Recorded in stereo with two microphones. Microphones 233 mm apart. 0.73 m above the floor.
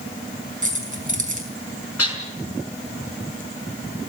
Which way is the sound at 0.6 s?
35° right (ahead or behind).